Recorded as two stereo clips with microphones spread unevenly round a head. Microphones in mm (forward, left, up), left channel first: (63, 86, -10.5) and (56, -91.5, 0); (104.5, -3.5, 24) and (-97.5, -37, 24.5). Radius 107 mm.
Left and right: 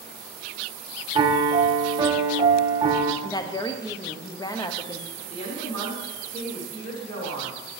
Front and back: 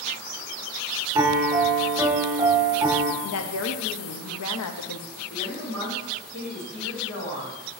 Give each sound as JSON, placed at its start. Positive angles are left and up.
{"t": 1.1, "sound": "a piano", "azimuth_deg": -115, "distance_m": 0.6}
{"t": 3.2, "sound": "a woman speaking", "azimuth_deg": 20, "distance_m": 0.7}
{"t": 5.2, "sound": "a woman speaking", "azimuth_deg": 45, "distance_m": 3.0}